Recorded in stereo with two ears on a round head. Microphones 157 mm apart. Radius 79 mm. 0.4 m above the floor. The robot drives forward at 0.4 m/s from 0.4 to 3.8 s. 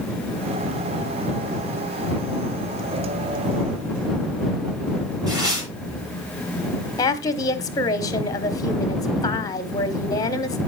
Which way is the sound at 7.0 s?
20° left (ahead or behind).